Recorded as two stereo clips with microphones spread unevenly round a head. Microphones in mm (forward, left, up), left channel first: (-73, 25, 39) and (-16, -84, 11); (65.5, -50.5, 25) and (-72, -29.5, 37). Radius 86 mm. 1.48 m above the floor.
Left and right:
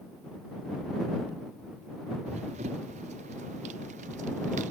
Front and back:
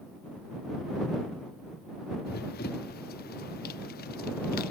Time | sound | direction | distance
2.3 | running footsteps | 10° right | ?